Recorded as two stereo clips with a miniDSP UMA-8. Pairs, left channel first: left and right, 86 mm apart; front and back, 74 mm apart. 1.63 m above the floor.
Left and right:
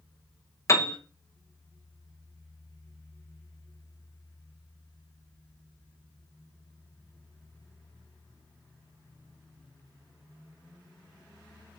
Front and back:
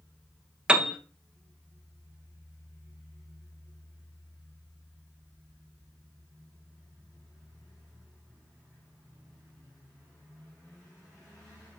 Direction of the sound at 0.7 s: 110° left.